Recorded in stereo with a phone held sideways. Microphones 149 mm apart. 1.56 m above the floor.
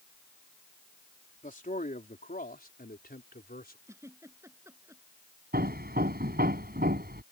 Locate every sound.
1.4 s a man speaking: 55° left (ahead or behind); by 3.8 s 75° left (ahead or behind)
3.9 s a giggle: 15° right (ahead or behind)
5.5 s hammering: 75° right (ahead or behind)